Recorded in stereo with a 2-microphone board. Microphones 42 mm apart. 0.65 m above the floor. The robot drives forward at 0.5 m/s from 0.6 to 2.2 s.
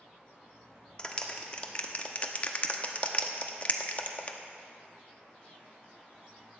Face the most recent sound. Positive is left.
turn(degrees=35)  # may be behind; listen again after turning